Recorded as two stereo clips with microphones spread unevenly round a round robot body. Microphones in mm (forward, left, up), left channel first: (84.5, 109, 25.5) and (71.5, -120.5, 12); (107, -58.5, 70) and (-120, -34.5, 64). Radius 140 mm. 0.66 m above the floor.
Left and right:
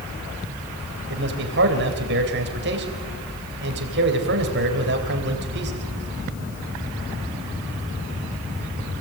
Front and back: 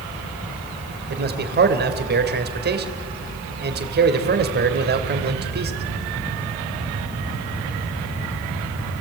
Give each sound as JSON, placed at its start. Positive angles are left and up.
{"t": 1.1, "sound": "a man speaking", "azimuth_deg": -140, "distance_m": 3.0}